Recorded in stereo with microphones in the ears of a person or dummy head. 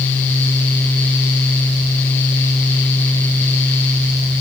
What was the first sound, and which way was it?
Only background noise.